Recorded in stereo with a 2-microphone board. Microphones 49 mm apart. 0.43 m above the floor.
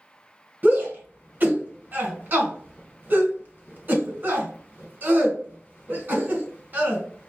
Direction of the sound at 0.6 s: 40° right (ahead or behind).